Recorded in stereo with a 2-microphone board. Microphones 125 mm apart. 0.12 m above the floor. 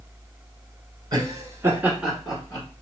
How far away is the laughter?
About 1.3 m.